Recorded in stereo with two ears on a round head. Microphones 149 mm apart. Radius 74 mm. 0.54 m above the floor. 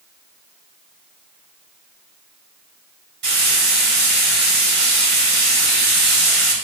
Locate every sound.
3.2 s frying: 70° right (ahead or behind), 2.5 m